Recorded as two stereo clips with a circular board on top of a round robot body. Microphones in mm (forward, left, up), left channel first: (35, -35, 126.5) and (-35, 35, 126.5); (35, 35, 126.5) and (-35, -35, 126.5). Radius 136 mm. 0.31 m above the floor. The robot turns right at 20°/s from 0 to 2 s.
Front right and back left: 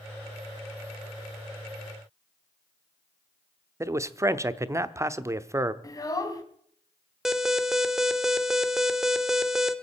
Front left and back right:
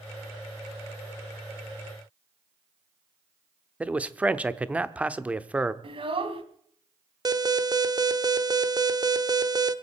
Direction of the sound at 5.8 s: 100° right.